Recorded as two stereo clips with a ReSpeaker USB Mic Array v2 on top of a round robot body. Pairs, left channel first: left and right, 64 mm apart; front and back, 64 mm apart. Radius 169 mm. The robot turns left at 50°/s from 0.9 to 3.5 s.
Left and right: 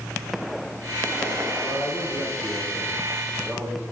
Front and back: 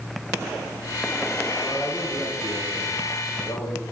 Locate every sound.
1.6 s a man speaking: 80° left, 5 m; by 3.8 s 10° right, 5 m